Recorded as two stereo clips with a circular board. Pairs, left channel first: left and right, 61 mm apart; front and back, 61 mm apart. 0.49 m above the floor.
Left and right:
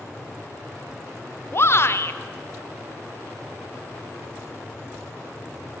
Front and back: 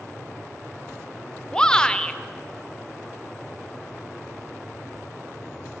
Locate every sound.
1.5 s a shout: 70° left, 1.3 m